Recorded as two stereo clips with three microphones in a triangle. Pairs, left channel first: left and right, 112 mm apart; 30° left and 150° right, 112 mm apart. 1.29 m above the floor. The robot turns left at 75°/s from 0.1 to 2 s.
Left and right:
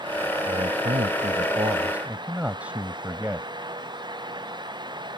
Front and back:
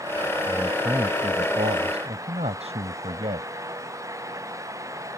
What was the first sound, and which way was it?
A man speaking, 50° right.